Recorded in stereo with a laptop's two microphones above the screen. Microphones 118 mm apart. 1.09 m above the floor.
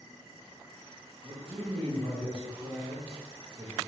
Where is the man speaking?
45° right (ahead or behind), 0.8 m.